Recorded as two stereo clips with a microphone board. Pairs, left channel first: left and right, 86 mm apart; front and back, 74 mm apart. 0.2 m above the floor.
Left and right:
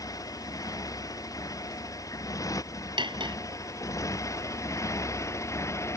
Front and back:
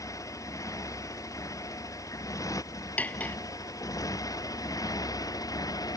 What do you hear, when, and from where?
0.0 s a motorcycle: 45° left; by 6.0 s 35° left
3.0 s cutlery clinking: 70° right